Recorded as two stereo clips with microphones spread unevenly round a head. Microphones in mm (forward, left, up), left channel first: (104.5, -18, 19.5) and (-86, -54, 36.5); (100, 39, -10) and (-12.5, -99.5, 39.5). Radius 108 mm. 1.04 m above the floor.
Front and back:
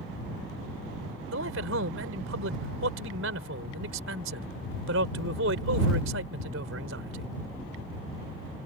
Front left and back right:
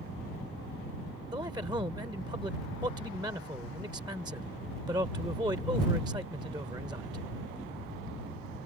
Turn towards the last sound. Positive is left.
turn(degrees=155)